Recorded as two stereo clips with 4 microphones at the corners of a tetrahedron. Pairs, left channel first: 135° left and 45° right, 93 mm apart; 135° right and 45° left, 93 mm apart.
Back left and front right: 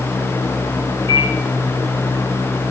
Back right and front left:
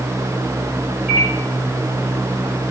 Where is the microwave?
30° right, 5 m.